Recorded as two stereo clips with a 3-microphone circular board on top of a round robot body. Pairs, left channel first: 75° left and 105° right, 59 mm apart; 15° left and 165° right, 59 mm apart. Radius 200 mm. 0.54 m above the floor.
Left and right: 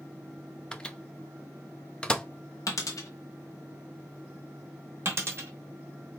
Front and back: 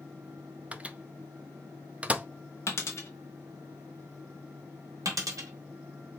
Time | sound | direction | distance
0.7 | a microwave | 140° left | 0.7 m
2.7 | a dropped coin | 55° left | 0.6 m
5.0 | a dropped coin | 150° right | 1.1 m